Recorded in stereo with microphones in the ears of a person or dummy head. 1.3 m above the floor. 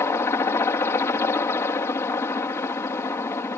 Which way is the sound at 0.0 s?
15° left (ahead or behind).